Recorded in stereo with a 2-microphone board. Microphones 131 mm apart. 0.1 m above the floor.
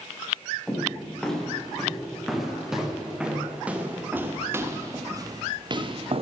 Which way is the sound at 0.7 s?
5° left (ahead or behind).